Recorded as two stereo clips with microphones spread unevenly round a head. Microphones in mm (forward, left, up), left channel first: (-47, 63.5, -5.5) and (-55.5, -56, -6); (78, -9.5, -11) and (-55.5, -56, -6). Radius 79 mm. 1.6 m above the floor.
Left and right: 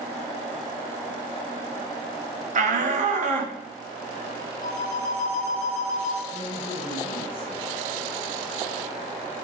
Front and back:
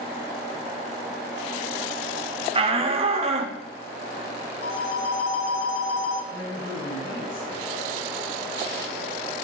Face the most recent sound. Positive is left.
turn(degrees=45)